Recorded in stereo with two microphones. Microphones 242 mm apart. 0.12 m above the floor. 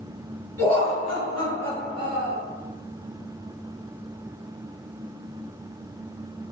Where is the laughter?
10° left (ahead or behind), 1.7 m; by 2.4 s 30° right (ahead or behind), 1.4 m.